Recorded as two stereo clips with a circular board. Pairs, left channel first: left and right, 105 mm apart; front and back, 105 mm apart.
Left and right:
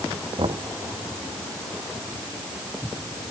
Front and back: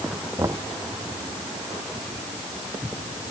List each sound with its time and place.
0.4 s knocking: 120° right